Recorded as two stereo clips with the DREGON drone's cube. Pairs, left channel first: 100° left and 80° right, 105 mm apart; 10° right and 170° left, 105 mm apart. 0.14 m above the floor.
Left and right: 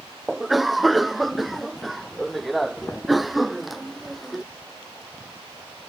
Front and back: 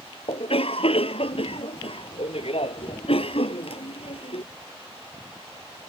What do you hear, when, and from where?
0.3 s a cough: 10° left